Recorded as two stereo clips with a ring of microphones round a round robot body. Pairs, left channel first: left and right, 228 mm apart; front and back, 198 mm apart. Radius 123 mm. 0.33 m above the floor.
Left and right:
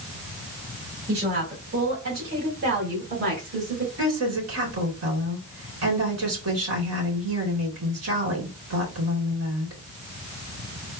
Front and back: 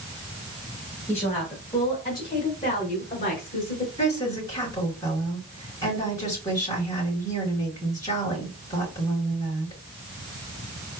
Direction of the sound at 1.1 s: 75° right.